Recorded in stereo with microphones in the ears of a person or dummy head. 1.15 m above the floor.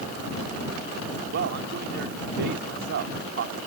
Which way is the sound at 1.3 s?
55° right (ahead or behind).